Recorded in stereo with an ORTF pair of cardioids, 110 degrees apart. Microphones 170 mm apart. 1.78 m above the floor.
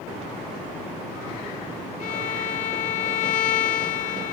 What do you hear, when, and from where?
2.0 s a violin: 50° left, 0.8 m